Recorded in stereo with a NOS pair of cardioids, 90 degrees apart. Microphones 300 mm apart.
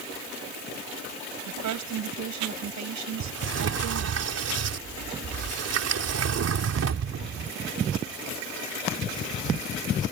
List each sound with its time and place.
1.5 s a woman speaking: 70° right
3.2 s a sliding door: 55° right